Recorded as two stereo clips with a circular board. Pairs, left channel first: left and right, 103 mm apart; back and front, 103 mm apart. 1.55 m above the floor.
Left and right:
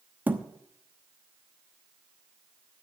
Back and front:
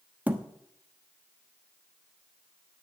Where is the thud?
50° right, 1.0 m.